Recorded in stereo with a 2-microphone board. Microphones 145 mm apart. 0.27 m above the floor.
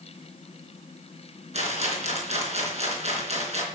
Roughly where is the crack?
I don't hear a crack.